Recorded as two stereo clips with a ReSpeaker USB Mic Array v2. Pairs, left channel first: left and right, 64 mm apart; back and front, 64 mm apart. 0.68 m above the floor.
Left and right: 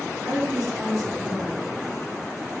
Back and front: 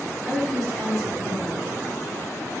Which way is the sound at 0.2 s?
90° right.